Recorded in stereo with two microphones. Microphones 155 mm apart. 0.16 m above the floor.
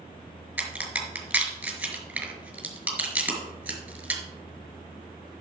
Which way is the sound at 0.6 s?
10° right (ahead or behind).